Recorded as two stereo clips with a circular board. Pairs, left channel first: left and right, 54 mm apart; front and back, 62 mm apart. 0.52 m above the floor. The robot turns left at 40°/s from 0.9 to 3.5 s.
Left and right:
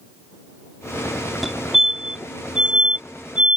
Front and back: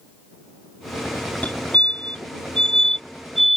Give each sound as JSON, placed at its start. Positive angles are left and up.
{"t": 1.4, "sound": "a fire alarm", "azimuth_deg": -5}